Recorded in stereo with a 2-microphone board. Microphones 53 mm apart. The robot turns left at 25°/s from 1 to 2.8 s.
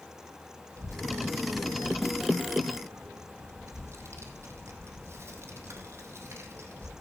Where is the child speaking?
70° right (ahead or behind), 2 m; by 6.9 s 55° right (ahead or behind), 2 m.